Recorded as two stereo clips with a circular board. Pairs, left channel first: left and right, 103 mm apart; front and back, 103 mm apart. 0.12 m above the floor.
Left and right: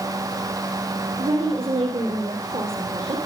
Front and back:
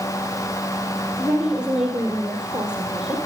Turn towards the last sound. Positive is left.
turn(degrees=-100)